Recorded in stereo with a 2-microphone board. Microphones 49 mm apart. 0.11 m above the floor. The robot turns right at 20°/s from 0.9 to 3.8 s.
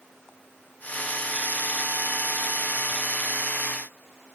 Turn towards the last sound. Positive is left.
No sound to turn to.